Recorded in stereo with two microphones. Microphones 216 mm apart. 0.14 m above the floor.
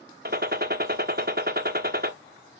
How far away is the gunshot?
About 0.8 m.